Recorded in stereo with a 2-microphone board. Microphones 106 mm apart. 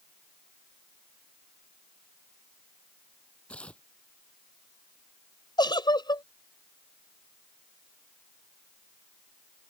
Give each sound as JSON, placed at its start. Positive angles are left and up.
{"t": 3.5, "sound": "tearing paper", "side_deg": 10}
{"t": 5.6, "sound": "a giggle", "side_deg": 45}